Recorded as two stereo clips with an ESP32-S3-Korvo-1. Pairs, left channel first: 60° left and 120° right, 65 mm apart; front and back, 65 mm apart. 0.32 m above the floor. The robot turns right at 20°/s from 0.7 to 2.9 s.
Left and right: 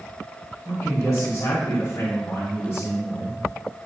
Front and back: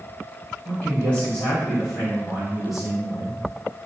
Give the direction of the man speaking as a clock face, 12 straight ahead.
10 o'clock.